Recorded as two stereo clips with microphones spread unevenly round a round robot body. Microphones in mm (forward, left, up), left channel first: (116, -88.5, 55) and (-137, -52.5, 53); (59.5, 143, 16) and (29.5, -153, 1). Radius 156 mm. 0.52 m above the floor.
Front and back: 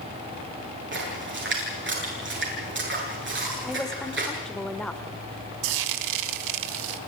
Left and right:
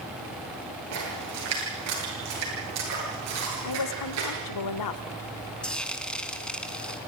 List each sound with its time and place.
0.9 s a splash: 140° right, 9 m
3.6 s a woman speaking: 80° left, 1.8 m
5.6 s frying: 170° left, 1.1 m